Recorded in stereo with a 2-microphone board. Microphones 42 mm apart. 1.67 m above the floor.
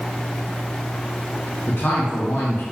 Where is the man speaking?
65° left (ahead or behind), 2.0 m.